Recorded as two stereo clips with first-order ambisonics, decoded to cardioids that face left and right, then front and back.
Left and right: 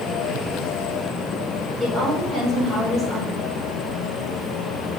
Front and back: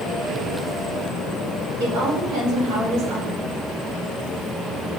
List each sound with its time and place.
1.8 s a woman speaking: 160° left, 4 m